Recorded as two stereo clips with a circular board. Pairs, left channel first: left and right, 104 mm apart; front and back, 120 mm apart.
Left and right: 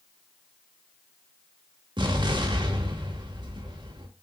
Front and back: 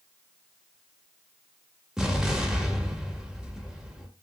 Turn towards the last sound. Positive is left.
turn(degrees=-95)